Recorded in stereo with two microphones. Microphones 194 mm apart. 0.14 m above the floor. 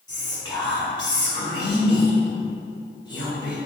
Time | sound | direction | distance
0.1 | whispering | 25° left (ahead or behind) | 1.1 m